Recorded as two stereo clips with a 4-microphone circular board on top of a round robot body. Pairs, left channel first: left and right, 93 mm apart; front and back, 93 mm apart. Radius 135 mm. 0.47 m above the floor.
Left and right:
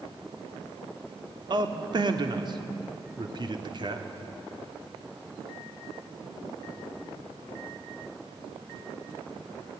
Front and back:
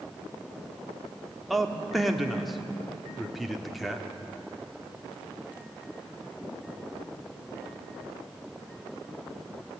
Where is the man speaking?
90° right, 1.8 m.